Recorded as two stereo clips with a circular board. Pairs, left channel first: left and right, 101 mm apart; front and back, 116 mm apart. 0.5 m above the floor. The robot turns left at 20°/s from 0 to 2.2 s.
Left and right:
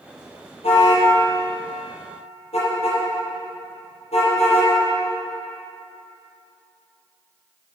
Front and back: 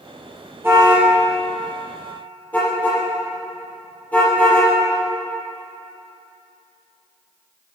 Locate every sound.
0.6 s a car horn: 110° left, 5.5 m; by 4.7 s 80° left, 5.5 m